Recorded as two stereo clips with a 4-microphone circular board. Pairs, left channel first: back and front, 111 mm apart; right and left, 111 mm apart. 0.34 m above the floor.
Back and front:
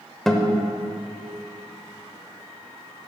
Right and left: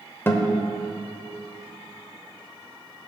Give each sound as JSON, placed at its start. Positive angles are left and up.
{"t": 0.3, "sound": "a guitar", "azimuth_deg": -100, "distance_m": 1.1}